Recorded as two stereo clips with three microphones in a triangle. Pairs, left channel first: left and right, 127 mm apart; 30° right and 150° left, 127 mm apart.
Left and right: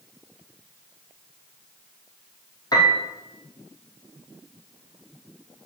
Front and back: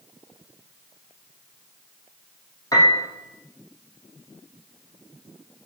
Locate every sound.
2.7 s a piano: 30° left, 3 m